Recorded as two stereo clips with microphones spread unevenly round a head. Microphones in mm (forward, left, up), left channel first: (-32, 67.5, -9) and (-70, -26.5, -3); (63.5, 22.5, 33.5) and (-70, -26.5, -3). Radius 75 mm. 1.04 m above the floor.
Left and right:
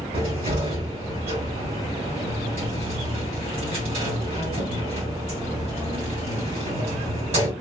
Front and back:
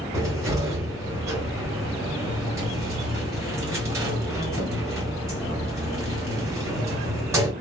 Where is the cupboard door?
85° right, 1.6 m.